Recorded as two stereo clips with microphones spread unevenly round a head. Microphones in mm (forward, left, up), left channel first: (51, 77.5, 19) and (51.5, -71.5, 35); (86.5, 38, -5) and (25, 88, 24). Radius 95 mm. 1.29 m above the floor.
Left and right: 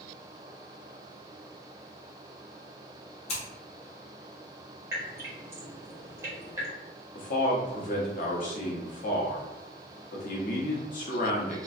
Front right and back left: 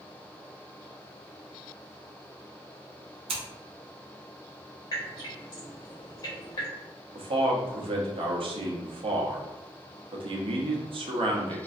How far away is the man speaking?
About 0.8 m.